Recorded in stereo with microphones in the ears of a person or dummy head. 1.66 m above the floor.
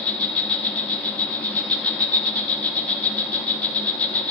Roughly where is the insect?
Centre.